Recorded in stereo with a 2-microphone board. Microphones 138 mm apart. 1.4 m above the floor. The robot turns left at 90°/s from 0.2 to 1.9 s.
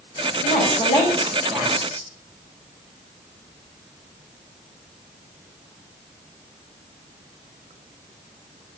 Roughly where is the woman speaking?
Left.